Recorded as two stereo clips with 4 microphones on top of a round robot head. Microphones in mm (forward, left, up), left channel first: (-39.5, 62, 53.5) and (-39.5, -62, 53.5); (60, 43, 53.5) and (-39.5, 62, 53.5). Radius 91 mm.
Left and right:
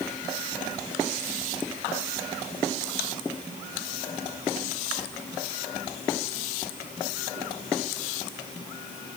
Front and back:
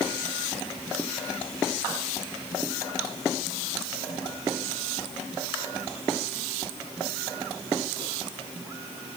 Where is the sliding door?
No sliding door in this recording.